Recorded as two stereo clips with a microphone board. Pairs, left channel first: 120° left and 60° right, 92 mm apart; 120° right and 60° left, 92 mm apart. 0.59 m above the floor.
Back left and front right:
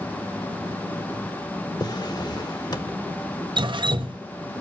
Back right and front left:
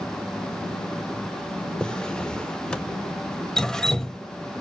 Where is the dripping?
35° right, 0.6 m.